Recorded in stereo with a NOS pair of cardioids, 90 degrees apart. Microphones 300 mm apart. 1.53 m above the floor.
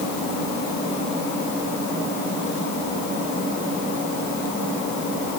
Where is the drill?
I don't hear a drill.